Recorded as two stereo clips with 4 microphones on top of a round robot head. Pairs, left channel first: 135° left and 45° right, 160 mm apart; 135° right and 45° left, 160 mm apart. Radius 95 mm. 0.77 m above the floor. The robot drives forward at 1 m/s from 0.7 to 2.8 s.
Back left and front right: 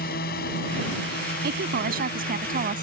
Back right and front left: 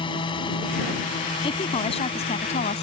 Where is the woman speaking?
75° right; by 2.8 s 85° right.